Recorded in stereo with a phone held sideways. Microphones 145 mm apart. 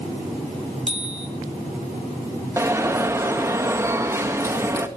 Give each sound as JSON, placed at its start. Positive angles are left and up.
{"t": 0.9, "sound": "a bicycle bell", "side_deg": -40, "distance_m": 2.5}
{"t": 2.6, "sound": "an alarm", "side_deg": -20, "distance_m": 1.8}